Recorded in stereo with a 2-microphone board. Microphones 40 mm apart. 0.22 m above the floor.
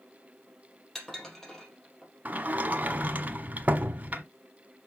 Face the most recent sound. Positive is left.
turn(degrees=-40)  # may be behind; listen again after turning